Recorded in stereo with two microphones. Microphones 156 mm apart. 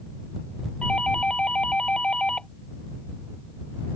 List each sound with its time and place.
0.8 s a doorbell: 5° left (ahead or behind)